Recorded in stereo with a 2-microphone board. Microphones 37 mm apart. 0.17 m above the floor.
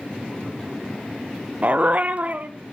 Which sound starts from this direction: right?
A dog barking, at 1.6 s.